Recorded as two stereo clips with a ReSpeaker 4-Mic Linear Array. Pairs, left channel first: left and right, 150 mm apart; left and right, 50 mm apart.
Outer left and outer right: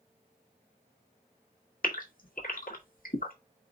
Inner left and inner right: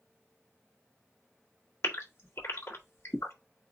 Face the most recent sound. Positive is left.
turn(degrees=70)  # may be behind; listen again after turning